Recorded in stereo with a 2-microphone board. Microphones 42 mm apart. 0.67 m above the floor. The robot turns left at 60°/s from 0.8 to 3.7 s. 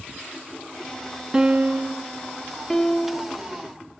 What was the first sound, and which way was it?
A piano, 15° right.